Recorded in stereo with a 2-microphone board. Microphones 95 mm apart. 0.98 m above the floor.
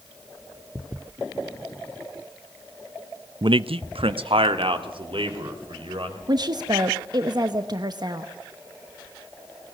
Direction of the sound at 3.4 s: 50° right (ahead or behind).